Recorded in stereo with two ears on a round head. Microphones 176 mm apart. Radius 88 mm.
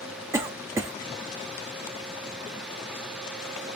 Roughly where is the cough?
Centre.